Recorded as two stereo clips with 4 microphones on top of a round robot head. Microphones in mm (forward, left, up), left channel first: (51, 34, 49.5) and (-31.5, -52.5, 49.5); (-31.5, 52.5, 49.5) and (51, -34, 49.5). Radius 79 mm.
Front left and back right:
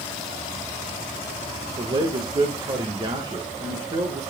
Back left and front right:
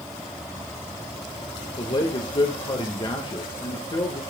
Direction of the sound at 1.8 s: Straight behind.